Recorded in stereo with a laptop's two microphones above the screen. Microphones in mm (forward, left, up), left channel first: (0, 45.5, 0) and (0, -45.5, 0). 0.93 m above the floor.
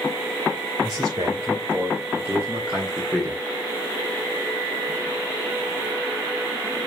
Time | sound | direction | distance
0.8 | a man speaking | 40° right (ahead or behind) | 4 m